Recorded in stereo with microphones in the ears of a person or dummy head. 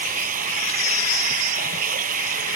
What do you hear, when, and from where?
0.0 s running water: 45° right (ahead or behind)